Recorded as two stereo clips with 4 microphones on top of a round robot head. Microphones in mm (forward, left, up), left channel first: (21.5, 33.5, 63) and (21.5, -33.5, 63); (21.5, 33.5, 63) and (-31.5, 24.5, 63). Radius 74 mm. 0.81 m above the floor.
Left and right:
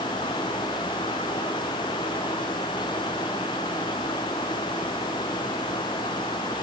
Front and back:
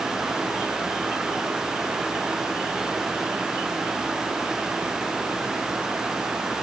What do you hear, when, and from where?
Only background noise.